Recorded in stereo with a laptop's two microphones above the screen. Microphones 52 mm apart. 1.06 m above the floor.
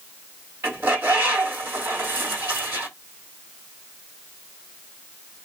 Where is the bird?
50° right (ahead or behind), 1.4 m.